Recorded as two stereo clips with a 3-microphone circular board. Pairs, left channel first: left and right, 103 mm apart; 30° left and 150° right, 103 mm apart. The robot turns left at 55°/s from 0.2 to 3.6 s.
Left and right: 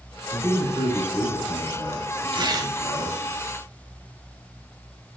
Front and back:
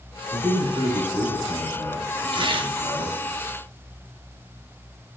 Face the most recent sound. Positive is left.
turn(degrees=170)